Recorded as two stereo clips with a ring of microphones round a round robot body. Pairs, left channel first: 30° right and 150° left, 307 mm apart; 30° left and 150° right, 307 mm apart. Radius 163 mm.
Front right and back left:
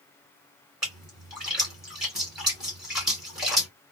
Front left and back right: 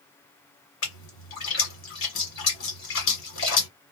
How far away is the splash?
About 1.6 m.